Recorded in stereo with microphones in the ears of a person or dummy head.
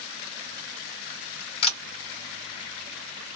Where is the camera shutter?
35° left (ahead or behind), 2 m.